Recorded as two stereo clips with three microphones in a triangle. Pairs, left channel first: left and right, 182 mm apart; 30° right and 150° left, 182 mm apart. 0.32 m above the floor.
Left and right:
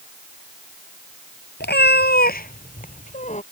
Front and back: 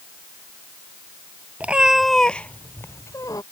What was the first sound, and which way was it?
A cat meowing, 70° left.